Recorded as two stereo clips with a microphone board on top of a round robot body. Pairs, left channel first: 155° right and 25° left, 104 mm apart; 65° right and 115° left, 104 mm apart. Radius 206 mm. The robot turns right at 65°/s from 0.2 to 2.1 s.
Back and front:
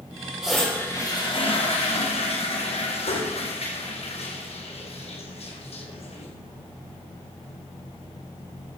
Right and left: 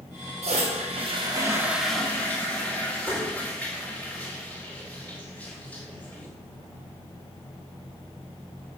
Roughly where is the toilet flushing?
Left.